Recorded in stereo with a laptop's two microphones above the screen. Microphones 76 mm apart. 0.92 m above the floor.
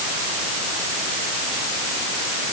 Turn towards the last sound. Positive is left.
No sound to turn to.